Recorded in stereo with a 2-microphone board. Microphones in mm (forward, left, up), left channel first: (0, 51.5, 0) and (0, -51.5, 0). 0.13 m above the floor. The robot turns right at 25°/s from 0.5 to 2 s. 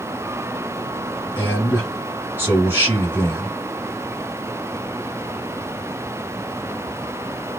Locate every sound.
1.4 s a man speaking: 25° right (ahead or behind), 1.6 m; by 3.5 s 20° right (ahead or behind), 1.6 m